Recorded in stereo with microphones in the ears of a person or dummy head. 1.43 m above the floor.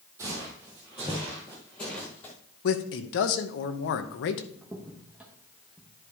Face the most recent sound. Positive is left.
turn(degrees=-10)  # may be behind; listen again after turning